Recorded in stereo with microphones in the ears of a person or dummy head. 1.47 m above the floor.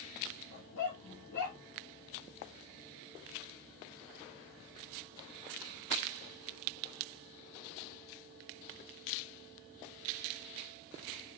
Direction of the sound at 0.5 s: 60° left (ahead or behind).